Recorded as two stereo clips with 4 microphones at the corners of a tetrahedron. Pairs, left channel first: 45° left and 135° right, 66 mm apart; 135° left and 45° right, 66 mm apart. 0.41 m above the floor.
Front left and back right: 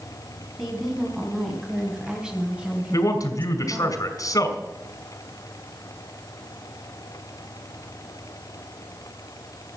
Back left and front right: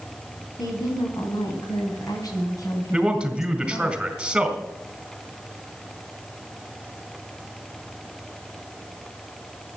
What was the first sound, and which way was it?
A woman speaking, 135° left.